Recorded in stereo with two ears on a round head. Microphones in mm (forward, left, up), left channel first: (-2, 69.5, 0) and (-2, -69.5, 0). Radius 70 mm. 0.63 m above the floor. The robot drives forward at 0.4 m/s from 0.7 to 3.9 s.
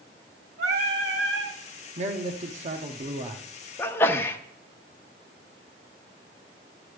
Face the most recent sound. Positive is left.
turn(degrees=15)  # may be behind; listen again after turning